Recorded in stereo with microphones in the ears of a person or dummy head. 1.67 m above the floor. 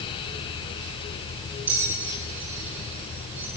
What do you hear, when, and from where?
1.7 s a bell: 10° right (ahead or behind), 7.5 m